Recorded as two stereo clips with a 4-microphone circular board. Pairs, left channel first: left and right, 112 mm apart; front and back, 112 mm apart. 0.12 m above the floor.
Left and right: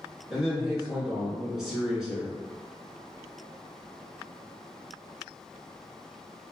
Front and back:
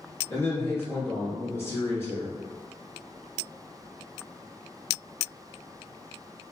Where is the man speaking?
10° right, 1.6 m.